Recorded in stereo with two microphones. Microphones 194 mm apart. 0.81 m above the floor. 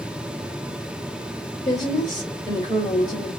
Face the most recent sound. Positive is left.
turn(degrees=20)  # may be behind; listen again after turning